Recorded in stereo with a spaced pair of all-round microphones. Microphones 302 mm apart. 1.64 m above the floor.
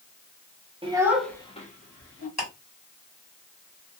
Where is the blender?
I don't hear a blender.